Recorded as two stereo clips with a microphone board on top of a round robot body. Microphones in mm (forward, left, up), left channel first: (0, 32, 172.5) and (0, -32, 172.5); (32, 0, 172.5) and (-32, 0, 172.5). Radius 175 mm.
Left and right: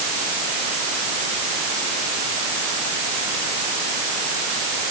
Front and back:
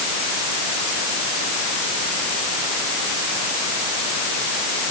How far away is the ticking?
No ticking in this recording.